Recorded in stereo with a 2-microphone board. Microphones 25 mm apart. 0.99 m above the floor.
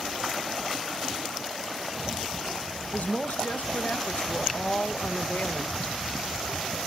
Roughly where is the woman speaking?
Left.